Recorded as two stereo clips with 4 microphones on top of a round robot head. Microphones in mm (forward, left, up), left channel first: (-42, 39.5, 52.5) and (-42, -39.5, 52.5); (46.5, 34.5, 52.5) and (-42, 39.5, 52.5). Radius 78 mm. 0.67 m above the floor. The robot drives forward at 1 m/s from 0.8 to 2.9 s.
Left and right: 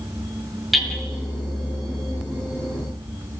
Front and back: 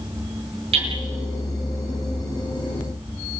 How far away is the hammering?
About 9 m.